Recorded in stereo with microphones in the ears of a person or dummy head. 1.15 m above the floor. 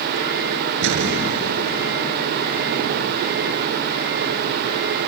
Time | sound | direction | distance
0.8 | an explosion | 70° right (ahead or behind) | ?